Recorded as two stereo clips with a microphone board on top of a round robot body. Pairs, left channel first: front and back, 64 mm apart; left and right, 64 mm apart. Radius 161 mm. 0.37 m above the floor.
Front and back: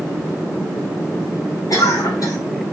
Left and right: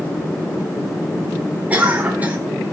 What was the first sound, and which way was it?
A cough, 20° right.